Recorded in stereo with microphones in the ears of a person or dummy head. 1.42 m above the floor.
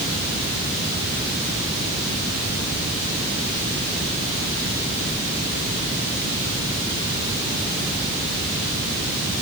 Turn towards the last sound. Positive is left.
No sound to turn to.